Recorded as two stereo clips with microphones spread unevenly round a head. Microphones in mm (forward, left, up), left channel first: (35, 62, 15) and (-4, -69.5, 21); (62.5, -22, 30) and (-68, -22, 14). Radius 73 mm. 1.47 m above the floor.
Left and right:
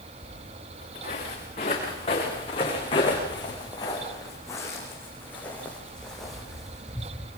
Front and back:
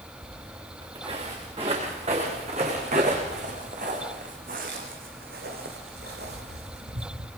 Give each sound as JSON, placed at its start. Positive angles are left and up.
{"t": 0.2, "sound": "footsteps", "azimuth_deg": 120, "distance_m": 9.0}